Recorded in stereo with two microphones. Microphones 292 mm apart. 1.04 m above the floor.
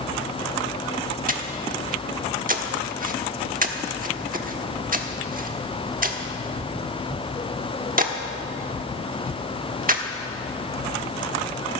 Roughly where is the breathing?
Right.